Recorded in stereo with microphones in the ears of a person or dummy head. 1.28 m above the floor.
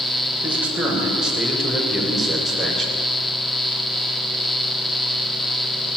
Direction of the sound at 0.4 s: 10° right (ahead or behind).